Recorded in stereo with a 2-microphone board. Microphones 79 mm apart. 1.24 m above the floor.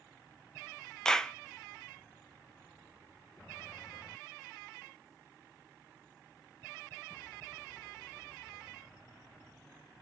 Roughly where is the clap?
Centre.